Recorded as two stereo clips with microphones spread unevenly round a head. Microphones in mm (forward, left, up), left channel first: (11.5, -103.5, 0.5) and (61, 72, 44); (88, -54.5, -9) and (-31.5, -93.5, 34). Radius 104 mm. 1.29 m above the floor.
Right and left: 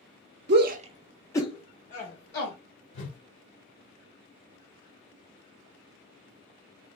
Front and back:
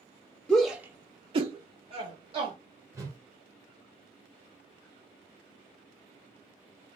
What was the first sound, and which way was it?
A shout, 75° left.